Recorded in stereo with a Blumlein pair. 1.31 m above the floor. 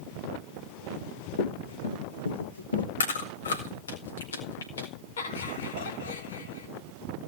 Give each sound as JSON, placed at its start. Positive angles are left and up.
{"t": 0.9, "sound": "running footsteps", "azimuth_deg": 65, "distance_m": 6.0}
{"t": 3.0, "sound": "chewing", "azimuth_deg": 70, "distance_m": 4.5}
{"t": 5.2, "sound": "laughter", "azimuth_deg": 65, "distance_m": 4.0}